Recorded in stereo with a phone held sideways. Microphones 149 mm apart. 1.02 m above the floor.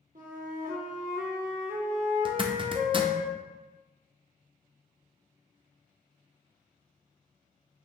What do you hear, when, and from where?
0.1 s a flute: 65° right (ahead or behind), 1.0 m
2.2 s a zipper: 35° right (ahead or behind), 0.5 m